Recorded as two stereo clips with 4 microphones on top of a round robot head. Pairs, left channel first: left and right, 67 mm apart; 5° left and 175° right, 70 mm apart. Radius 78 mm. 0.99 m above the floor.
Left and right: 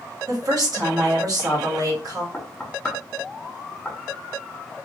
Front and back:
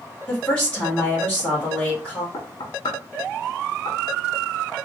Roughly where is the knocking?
Ahead.